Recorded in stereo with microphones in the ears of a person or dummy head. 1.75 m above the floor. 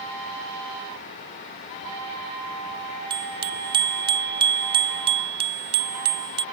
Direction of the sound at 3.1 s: 20° right (ahead or behind).